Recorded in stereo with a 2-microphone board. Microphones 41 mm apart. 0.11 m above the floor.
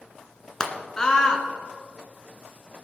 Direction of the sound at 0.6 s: 20° left (ahead or behind).